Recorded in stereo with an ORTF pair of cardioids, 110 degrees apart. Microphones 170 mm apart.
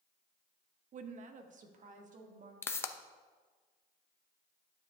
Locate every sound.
0.9 s a woman speaking: 45° right, 0.7 m
2.6 s a pop: 15° left, 0.6 m